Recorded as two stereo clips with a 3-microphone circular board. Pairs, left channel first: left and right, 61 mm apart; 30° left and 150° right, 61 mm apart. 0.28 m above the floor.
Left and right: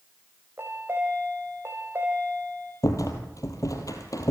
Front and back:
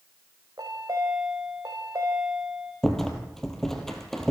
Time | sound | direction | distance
0.6 | a chime | 140° right | 4 m
2.8 | a rattle | 115° left | 3 m